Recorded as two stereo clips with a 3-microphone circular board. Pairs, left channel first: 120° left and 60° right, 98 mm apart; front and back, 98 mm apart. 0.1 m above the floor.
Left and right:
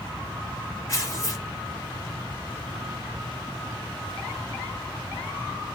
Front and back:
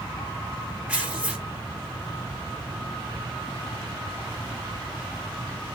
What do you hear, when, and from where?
0.9 s tearing paper: 110° left, 1.9 m